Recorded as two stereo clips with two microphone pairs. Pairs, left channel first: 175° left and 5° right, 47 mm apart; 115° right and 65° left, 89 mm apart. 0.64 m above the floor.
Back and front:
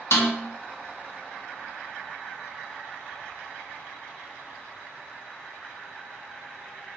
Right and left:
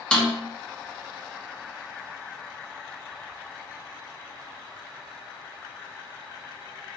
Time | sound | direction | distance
0.1 | a snare drum | 165° left | 0.9 m